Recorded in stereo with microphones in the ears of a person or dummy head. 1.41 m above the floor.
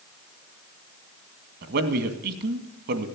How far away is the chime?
No chime in this recording.